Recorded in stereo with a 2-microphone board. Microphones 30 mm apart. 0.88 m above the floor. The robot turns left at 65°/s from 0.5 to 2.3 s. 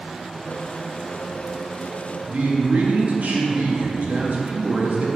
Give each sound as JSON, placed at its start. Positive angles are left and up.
{"t": 2.3, "sound": "a man speaking", "side_deg": -60, "distance_m": 1.4}